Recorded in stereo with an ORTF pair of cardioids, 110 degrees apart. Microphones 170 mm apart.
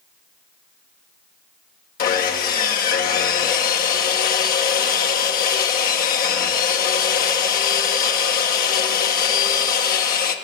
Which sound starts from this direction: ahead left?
Sawing, at 2.0 s.